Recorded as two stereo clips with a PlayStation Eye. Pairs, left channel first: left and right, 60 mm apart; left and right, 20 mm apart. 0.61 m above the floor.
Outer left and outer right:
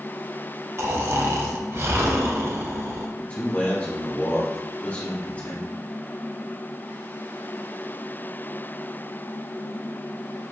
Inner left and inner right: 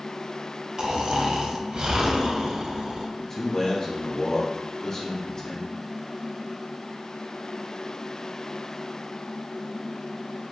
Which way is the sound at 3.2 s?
25° left (ahead or behind).